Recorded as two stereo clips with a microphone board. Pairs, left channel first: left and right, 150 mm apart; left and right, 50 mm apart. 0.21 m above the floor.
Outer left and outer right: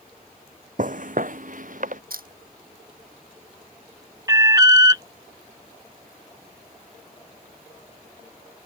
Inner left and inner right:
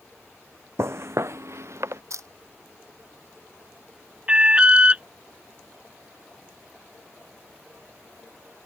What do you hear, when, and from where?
0.8 s footsteps: 60° right (ahead or behind)
2.1 s a camera shutter: 75° right (ahead or behind)
4.3 s an alarm: 25° right (ahead or behind)